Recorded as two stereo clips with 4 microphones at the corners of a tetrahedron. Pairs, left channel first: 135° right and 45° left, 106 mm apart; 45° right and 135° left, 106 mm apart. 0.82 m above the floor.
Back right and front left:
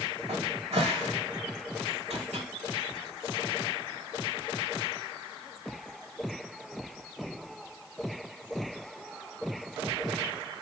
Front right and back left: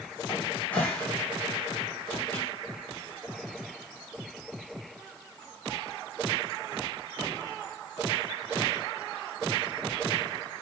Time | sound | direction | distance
0.3 | a cupboard door | 30° left | 1.5 m